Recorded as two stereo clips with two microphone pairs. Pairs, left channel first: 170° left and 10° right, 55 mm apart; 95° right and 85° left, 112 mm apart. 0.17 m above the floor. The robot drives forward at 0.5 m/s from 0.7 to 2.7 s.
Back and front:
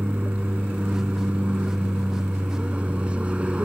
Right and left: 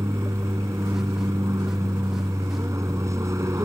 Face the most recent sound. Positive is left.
turn(degrees=40)